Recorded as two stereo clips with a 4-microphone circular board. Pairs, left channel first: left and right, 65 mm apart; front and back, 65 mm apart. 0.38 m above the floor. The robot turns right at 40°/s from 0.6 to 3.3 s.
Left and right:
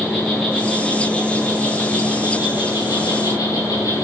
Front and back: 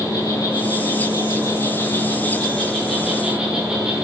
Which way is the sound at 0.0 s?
Straight ahead.